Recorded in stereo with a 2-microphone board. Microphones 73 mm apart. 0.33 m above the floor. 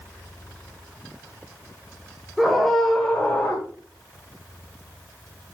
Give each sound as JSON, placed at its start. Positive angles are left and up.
{"t": 2.4, "sound": "a scream", "side_deg": -5, "distance_m": 1.7}